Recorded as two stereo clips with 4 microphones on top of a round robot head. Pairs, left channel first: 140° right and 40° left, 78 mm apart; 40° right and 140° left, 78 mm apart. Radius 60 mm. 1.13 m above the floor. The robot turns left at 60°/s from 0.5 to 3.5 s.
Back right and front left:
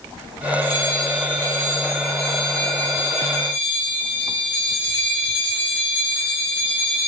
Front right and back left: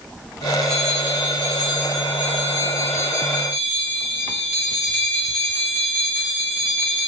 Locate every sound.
0.6 s a bell: 45° left, 1.4 m; by 7.1 s 130° right, 1.4 m